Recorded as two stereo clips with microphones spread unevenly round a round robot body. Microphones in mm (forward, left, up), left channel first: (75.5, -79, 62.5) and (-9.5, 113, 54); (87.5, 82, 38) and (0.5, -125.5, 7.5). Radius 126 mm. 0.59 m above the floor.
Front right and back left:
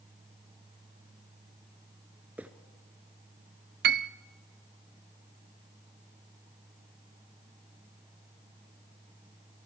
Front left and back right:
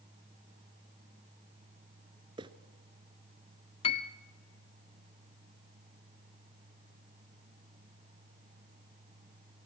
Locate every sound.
2.4 s footsteps: 165° right, 0.5 m
3.8 s a piano: 135° left, 0.5 m